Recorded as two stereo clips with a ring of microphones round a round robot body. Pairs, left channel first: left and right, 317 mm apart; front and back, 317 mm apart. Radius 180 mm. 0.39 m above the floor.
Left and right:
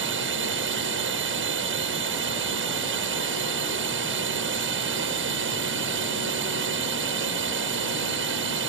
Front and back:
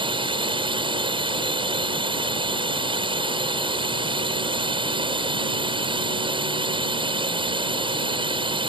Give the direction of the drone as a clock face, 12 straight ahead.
4 o'clock.